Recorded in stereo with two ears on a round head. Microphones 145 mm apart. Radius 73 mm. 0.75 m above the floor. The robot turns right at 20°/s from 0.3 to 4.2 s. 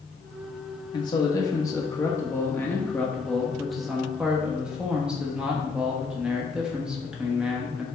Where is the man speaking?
125° left, 1.2 m; by 7.8 s 170° right, 1.2 m.